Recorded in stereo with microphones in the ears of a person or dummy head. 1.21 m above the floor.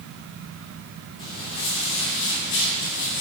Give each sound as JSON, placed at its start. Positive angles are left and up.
{"t": 1.2, "sound": "footsteps", "side_deg": 30, "distance_m": 3.0}